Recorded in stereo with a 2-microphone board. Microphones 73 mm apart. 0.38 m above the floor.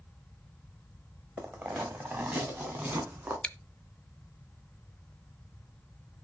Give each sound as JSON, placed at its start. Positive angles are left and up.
{"t": 1.4, "sound": "footsteps", "side_deg": -30, "distance_m": 1.7}
{"t": 3.4, "sound": "chewing", "side_deg": 15, "distance_m": 0.6}